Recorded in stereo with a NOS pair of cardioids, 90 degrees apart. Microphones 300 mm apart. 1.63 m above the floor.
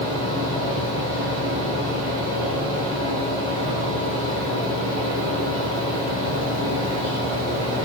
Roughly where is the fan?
Ahead right.